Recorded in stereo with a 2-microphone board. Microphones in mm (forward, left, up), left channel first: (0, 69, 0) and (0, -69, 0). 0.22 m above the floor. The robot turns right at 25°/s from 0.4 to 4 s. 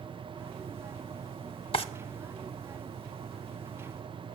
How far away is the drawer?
About 0.6 m.